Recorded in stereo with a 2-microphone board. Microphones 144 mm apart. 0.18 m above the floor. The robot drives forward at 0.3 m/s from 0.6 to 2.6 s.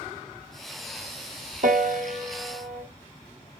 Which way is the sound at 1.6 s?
70° right (ahead or behind).